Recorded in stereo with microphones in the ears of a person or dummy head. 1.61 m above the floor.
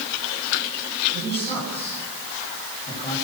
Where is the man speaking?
30° left (ahead or behind), 9 m.